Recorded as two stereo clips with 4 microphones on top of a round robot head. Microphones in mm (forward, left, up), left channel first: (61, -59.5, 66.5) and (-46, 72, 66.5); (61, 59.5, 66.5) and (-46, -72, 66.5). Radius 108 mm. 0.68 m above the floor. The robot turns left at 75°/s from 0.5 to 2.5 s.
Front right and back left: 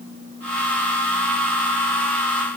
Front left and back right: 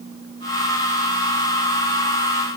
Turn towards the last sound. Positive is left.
No sound to turn to.